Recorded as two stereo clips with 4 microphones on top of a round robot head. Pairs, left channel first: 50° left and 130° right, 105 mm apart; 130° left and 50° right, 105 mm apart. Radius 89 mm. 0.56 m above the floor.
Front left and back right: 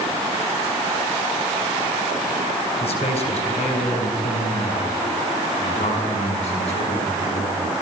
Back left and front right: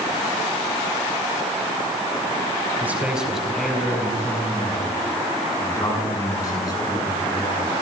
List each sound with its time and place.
2.8 s a man speaking: 25° left, 4 m; by 7.7 s 80° left, 9 m